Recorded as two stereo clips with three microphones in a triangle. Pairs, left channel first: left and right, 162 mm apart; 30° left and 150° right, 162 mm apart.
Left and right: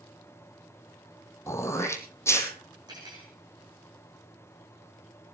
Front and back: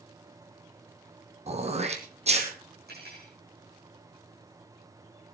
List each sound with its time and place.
1.5 s throat clearing: 165° left, 1.8 m
2.9 s cutlery clinking: 155° right, 6.5 m